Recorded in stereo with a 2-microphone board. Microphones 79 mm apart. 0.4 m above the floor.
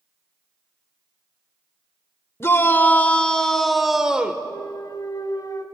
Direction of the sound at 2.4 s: 30° left (ahead or behind).